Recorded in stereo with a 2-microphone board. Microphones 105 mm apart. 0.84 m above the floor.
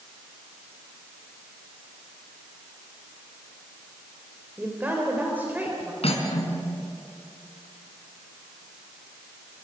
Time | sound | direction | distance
4.6 | a woman speaking | 20° right (ahead or behind) | 3.5 m
6.0 | cutlery clinking | 70° left (ahead or behind) | 4.5 m